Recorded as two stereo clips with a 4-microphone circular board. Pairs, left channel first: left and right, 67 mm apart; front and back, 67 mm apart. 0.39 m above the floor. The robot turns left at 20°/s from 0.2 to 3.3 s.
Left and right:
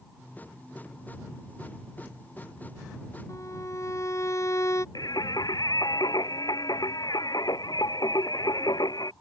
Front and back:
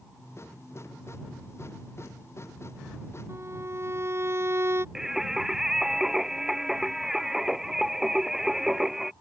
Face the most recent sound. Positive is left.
turn(degrees=95)